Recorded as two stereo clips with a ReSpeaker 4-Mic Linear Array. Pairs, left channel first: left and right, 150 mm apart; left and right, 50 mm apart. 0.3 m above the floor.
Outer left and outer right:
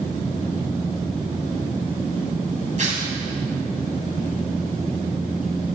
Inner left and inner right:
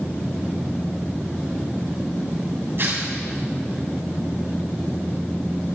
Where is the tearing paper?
55° right (ahead or behind), 2.5 m.